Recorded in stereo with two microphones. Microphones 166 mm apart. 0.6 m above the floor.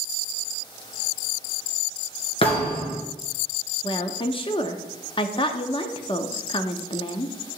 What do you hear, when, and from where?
2.4 s a thud: 35° left (ahead or behind), 2.5 m
3.8 s a woman speaking: 30° left (ahead or behind), 0.7 m